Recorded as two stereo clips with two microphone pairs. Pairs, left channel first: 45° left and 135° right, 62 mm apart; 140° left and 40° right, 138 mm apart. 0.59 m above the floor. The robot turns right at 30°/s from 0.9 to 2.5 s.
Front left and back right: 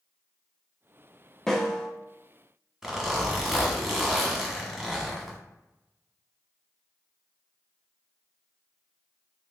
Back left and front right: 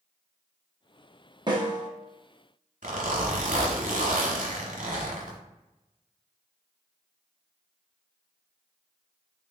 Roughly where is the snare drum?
Ahead right.